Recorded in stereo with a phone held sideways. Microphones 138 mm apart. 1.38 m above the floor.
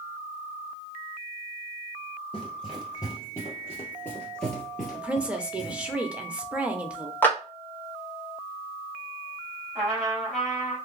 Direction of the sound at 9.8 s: Centre (ahead or behind).